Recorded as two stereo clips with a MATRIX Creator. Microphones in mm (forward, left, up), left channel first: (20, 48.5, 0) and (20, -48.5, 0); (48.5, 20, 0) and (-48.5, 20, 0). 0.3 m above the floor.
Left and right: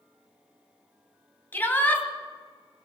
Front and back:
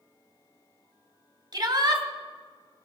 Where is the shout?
150° left, 2.5 m.